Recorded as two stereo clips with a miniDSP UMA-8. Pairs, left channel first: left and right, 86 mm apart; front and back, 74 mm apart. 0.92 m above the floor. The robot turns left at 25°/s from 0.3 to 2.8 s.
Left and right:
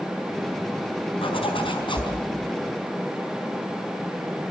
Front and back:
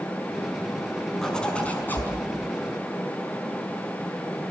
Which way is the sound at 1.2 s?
85° left.